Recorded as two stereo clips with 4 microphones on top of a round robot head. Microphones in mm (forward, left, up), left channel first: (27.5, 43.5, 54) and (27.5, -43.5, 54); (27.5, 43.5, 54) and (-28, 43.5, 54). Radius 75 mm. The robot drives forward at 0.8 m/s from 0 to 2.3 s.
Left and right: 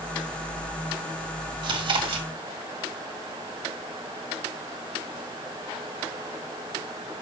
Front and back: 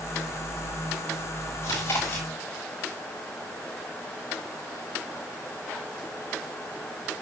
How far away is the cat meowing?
No cat meowing in this recording.